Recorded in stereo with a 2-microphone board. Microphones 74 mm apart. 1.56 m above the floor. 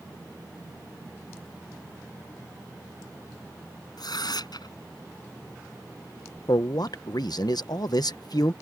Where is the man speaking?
65° left (ahead or behind).